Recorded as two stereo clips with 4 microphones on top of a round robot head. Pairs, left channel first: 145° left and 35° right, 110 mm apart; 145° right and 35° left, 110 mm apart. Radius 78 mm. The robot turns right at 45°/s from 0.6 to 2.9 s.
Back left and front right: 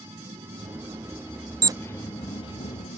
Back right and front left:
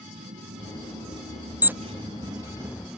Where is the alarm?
25° right; by 1.7 s 20° right.